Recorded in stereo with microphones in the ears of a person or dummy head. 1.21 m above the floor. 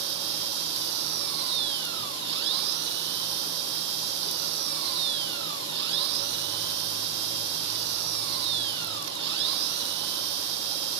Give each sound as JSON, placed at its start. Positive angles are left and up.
{"t": 0.0, "sound": "an engine running", "side_deg": -70}